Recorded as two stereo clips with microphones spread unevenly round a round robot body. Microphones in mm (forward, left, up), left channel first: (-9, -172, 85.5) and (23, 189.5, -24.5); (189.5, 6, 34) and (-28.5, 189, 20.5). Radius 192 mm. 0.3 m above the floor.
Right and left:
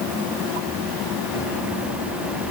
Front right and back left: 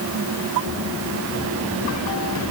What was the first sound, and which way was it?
Only background noise.